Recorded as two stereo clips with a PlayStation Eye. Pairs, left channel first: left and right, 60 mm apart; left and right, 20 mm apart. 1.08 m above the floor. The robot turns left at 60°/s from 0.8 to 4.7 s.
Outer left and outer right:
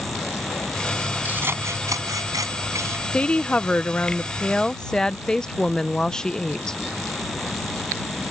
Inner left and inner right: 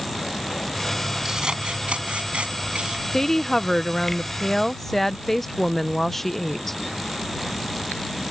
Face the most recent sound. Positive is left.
turn(degrees=10)  # may be behind; listen again after turning